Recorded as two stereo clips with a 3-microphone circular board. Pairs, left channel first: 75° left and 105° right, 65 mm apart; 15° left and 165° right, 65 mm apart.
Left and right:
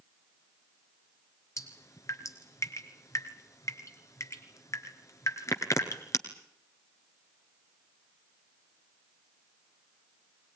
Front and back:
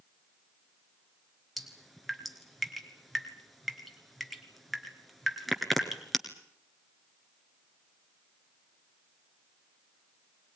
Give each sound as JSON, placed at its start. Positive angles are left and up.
{"t": 1.6, "sound": "dripping", "azimuth_deg": 105, "distance_m": 1.8}